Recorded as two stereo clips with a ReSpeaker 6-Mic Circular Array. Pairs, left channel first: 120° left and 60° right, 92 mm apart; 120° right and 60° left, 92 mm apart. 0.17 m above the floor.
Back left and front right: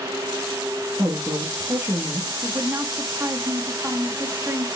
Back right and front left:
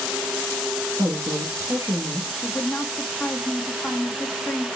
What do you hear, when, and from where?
1.0 s a woman speaking: 5° left, 3 m
2.4 s a woman speaking: 35° right, 1.1 m